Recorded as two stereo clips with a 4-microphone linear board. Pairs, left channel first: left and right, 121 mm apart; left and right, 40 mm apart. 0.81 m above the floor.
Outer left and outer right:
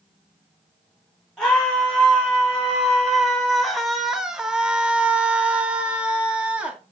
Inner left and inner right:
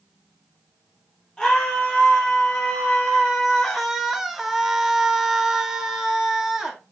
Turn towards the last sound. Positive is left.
turn(degrees=-10)  # may be behind; listen again after turning